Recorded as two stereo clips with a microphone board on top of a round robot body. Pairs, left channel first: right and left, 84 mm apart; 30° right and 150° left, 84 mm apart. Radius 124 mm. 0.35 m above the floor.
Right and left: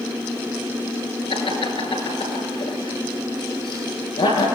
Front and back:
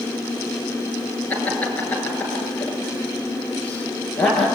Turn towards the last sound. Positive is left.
turn(degrees=-105)